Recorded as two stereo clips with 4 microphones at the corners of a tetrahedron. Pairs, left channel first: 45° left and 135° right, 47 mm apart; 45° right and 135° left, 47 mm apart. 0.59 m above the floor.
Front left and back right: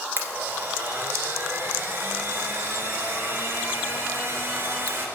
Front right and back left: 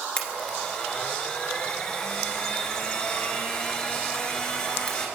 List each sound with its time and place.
0.2 s a blender: 115° right, 2.0 m